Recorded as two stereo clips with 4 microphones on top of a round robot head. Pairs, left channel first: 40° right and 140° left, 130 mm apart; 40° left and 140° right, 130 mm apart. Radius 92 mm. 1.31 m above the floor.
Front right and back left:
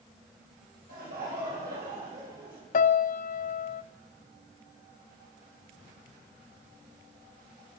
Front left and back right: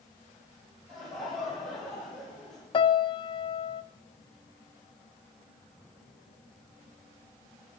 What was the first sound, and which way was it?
Laughter, 130° left.